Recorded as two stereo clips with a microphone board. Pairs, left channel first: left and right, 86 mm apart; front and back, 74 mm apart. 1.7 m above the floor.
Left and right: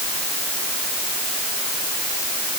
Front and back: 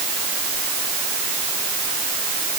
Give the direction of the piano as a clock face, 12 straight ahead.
No piano in this recording.